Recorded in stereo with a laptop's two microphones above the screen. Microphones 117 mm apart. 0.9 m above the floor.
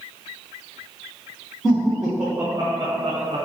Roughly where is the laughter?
Centre.